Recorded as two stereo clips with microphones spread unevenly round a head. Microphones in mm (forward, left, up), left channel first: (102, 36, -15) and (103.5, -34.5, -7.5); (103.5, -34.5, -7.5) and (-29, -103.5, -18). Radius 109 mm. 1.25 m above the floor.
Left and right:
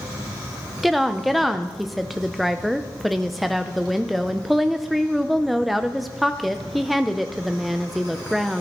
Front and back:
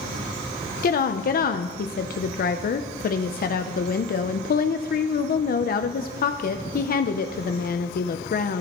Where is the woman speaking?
Straight ahead, 0.6 m.